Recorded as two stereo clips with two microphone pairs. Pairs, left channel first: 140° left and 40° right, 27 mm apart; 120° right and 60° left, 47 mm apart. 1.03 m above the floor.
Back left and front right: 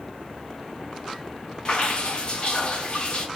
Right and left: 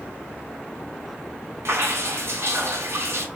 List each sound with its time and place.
1.6 s dripping: 85° left, 0.6 m